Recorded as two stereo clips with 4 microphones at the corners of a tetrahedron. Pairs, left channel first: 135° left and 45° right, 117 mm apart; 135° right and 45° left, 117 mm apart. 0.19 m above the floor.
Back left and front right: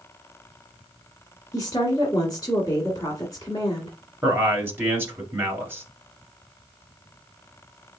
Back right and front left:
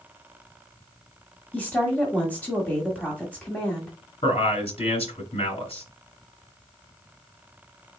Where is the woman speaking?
155° left, 1.6 m.